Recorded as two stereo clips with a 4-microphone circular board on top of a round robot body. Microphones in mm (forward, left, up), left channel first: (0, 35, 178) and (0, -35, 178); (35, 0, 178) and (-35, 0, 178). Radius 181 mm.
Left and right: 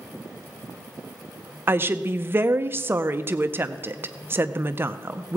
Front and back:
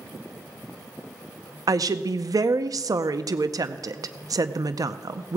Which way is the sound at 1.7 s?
150° right.